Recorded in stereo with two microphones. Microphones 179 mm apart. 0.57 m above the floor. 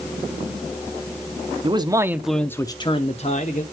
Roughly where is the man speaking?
Right.